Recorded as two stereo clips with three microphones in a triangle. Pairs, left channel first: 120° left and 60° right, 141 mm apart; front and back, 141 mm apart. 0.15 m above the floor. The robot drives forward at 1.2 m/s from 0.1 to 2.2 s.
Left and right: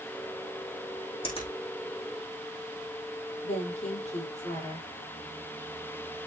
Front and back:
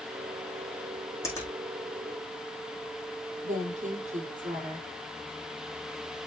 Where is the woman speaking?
155° left, 5.5 m.